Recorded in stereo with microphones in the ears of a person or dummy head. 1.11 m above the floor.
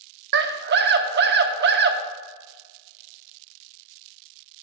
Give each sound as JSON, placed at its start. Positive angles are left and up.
{"t": 0.3, "sound": "a scream", "side_deg": -50, "distance_m": 0.6}